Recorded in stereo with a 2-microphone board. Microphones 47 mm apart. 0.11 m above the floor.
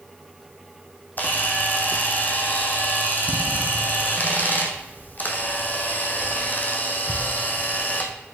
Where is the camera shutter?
40° left (ahead or behind), 1.2 m.